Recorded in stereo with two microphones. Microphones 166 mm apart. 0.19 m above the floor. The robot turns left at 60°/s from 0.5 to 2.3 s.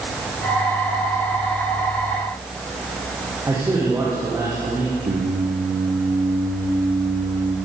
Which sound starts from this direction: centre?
A man speaking, at 3.5 s.